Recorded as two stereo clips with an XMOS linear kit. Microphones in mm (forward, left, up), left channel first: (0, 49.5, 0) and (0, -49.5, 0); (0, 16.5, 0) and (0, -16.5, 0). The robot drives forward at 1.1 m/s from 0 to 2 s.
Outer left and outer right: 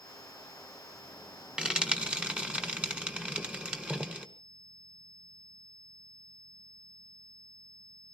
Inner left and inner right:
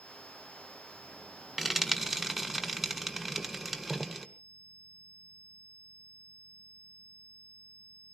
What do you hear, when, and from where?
1.6 s frying: 10° right (ahead or behind), 1.9 m